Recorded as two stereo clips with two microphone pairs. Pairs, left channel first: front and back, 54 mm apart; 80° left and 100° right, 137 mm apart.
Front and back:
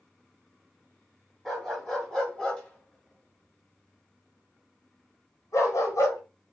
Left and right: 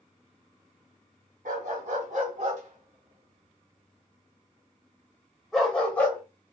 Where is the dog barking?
85° right, 2 m; by 6.2 s straight ahead, 1.8 m.